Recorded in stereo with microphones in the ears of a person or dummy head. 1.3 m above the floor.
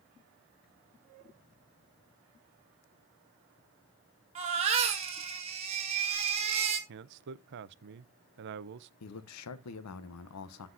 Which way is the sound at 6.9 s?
60° right (ahead or behind).